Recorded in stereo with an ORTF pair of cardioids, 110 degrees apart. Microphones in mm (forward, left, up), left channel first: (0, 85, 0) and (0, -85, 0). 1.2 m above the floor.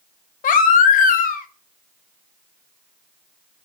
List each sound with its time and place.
0.4 s a baby crying: 55° left, 0.8 m